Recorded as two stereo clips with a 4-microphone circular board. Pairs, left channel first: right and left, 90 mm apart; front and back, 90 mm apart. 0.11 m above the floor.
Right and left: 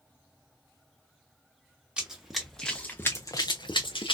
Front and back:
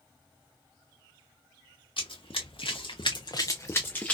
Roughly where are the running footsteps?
Ahead.